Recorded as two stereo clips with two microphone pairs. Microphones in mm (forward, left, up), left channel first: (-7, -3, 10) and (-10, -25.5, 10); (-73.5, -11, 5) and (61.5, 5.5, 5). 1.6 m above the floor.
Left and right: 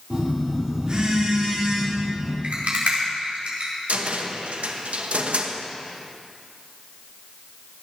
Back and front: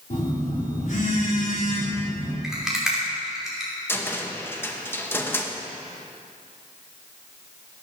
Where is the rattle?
80° right, 5 m.